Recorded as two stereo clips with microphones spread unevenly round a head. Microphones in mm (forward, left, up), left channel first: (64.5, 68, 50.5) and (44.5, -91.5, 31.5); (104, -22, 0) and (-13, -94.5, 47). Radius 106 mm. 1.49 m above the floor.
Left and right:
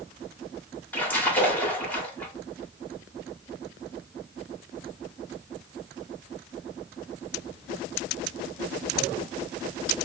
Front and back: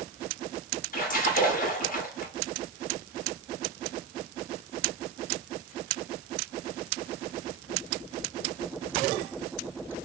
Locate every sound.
0.9 s a splash: 5° left, 1.3 m